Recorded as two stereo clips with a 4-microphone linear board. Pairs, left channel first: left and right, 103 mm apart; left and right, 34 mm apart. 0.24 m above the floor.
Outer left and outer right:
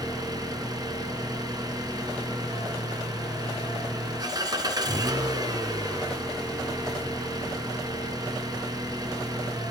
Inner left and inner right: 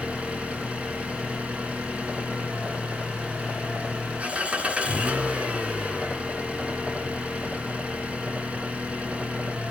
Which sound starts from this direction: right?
An engine running, at 0.0 s.